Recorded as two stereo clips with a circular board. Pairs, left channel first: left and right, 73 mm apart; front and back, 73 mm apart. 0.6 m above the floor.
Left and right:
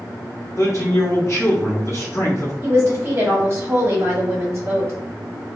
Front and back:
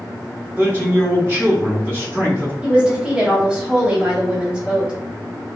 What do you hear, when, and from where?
0.6 s a man speaking: 135° left, 1.1 m
2.6 s a woman speaking: 110° right, 1.0 m